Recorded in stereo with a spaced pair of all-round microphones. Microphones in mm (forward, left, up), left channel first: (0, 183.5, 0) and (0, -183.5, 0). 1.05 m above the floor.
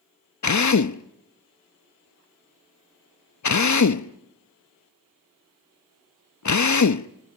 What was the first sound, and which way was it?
A drill, 50° left (ahead or behind).